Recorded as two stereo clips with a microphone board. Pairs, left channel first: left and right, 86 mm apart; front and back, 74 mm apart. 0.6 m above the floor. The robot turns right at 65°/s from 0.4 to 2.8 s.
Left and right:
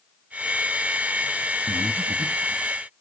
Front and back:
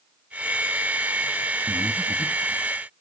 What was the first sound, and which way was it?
Breathing, 120° right.